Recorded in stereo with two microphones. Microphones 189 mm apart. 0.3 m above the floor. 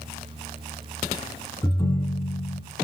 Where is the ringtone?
20° left (ahead or behind), 1.5 m.